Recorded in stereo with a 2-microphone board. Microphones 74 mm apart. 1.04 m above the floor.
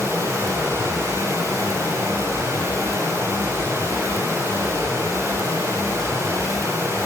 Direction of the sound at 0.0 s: 40° right (ahead or behind).